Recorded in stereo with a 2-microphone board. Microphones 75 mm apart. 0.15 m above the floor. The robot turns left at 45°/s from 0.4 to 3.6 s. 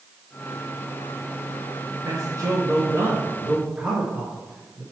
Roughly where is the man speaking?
Right.